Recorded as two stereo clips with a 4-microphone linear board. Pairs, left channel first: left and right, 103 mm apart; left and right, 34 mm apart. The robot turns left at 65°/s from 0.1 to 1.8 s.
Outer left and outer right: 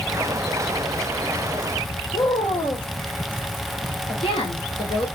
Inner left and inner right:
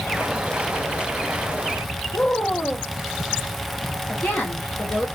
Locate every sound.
2.1 s a woman speaking: 65° left (ahead or behind), 1.2 m